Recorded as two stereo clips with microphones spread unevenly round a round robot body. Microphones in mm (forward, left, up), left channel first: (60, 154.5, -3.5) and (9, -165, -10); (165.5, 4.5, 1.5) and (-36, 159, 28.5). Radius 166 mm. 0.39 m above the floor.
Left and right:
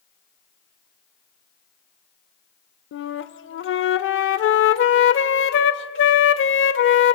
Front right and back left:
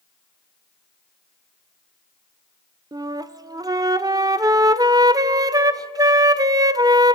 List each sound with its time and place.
2.9 s a flute: 65° left, 0.7 m